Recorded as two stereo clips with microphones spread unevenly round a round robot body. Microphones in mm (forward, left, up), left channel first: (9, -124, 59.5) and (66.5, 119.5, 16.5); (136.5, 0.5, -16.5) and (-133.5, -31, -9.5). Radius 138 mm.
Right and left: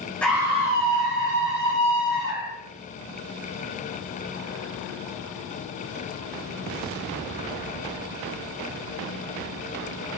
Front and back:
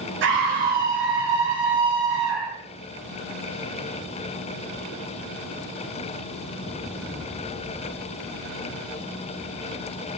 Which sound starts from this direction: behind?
A scream, at 0.2 s.